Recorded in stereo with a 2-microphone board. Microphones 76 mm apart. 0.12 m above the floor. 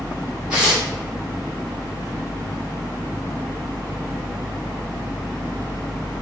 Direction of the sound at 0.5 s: 15° right (ahead or behind).